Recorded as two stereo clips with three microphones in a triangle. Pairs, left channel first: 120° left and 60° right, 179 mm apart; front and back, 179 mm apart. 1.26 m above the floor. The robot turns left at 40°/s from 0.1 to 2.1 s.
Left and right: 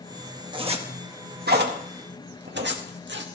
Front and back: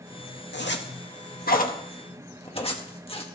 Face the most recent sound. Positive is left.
turn(degrees=-60)